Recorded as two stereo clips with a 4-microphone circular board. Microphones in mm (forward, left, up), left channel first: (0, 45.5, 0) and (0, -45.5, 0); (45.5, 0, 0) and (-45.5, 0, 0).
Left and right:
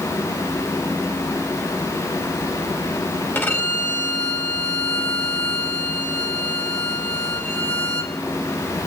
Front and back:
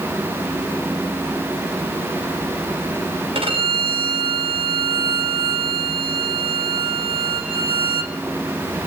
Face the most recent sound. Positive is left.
turn(degrees=155)